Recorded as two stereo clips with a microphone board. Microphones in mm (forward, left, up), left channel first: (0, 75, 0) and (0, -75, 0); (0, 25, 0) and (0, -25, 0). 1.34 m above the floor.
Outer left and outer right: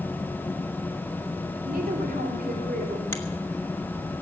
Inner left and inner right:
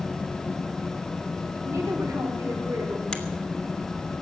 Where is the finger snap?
15° left (ahead or behind), 1.7 m.